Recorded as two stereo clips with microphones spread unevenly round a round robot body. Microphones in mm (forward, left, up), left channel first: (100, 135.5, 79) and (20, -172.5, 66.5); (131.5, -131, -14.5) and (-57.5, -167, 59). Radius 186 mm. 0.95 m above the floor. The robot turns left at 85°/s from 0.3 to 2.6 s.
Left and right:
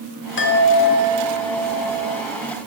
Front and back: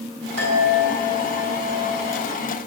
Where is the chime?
130° left, 1.8 m; by 2.2 s 25° right, 1.8 m.